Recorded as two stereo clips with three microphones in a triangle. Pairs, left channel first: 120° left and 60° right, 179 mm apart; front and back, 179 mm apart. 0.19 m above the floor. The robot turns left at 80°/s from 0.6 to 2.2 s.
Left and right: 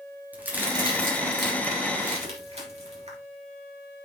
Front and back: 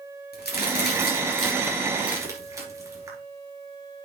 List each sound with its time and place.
0.3 s a crack: 20° left, 3 m; by 3.2 s 110° right, 3 m